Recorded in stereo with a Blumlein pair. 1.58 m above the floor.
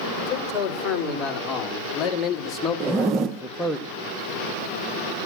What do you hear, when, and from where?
0.2 s a man speaking: 35° left, 5.5 m; by 3.8 s 5° right, 1.1 m
2.8 s a zipper: 30° right, 1.3 m